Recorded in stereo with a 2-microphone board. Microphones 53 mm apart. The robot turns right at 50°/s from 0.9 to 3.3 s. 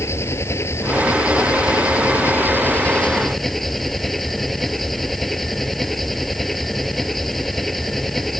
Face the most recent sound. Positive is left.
turn(degrees=175)